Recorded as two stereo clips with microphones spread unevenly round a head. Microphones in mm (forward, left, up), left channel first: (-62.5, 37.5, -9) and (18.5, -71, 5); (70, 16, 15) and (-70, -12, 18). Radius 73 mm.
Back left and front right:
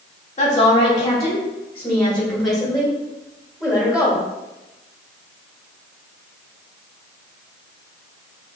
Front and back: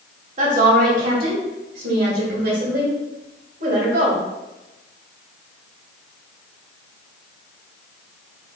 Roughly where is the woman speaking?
Behind.